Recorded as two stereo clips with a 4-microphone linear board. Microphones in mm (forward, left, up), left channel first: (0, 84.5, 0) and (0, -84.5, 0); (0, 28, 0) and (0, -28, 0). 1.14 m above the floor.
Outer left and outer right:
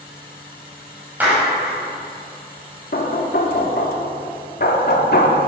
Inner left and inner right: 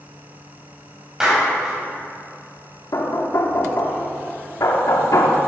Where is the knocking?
75° left (ahead or behind), 1.4 m.